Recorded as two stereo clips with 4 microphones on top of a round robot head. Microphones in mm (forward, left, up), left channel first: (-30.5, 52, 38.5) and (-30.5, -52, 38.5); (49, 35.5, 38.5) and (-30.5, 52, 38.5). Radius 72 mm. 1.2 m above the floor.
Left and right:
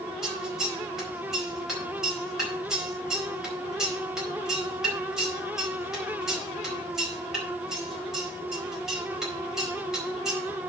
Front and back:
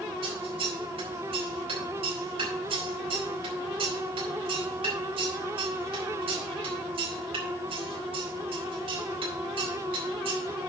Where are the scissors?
175° right, 4.5 m.